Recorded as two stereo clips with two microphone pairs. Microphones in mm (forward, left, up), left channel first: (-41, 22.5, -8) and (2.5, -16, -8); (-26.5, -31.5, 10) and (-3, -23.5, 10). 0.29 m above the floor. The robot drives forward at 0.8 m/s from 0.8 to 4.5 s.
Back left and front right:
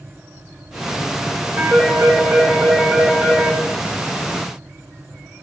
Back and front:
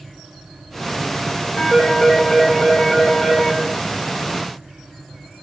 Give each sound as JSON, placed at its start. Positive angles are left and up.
{"t": 1.6, "sound": "a phone ringing", "azimuth_deg": -100, "distance_m": 8.5}